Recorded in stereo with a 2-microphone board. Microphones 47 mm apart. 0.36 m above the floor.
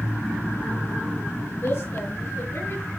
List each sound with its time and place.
1.6 s a woman speaking: 65° left (ahead or behind), 4.5 m; by 2.9 s 75° left (ahead or behind), 5.5 m